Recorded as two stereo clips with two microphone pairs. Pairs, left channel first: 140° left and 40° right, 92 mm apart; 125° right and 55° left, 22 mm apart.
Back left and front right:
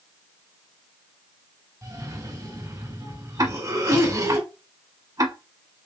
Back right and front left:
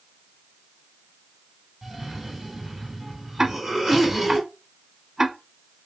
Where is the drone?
No drone in this recording.